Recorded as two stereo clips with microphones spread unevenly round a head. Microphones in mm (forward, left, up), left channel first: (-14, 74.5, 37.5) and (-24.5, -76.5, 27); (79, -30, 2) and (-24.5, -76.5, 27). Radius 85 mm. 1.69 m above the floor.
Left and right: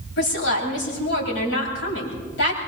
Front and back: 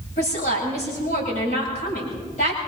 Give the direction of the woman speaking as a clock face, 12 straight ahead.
10 o'clock.